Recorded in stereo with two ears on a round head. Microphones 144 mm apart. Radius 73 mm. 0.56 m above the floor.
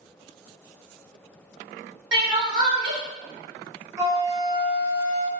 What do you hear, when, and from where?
2.1 s crying: 30° right (ahead or behind), 0.9 m
4.0 s a flute: 20° right (ahead or behind), 1.0 m